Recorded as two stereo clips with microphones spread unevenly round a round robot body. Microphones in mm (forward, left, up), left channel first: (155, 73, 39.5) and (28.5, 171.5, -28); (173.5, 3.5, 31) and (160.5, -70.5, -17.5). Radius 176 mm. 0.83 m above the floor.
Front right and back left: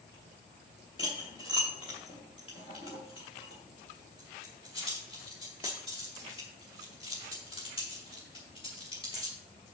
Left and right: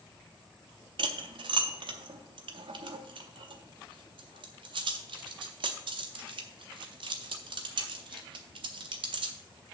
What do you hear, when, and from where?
1.0 s cutlery clinking: 110° right, 0.5 m